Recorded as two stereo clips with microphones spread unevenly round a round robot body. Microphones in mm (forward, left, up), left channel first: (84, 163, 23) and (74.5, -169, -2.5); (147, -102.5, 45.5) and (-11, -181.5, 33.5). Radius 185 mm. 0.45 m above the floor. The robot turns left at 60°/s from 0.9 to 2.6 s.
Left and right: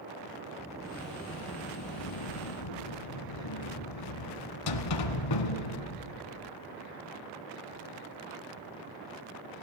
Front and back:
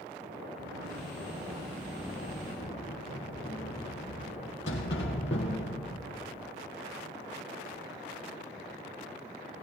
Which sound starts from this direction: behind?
A sliding door, at 0.6 s.